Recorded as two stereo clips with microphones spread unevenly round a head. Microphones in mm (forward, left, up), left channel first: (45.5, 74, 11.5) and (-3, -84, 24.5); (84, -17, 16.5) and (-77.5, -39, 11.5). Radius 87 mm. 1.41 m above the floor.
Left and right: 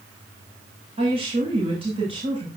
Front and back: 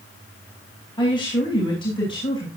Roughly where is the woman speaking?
Ahead right.